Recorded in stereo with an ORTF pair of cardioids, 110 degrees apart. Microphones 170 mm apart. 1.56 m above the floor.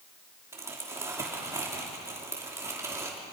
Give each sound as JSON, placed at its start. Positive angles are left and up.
{"t": 0.5, "sound": "crumpling", "azimuth_deg": -15, "distance_m": 3.0}